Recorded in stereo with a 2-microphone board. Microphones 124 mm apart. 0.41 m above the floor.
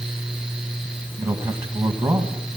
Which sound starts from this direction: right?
A man speaking, at 1.2 s.